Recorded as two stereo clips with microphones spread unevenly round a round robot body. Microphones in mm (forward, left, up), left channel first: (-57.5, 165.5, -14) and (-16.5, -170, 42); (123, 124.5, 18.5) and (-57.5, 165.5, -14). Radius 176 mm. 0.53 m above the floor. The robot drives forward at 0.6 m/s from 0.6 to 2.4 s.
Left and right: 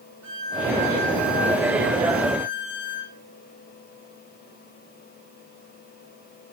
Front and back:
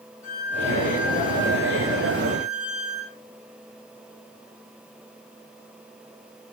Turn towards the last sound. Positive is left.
turn(degrees=-30)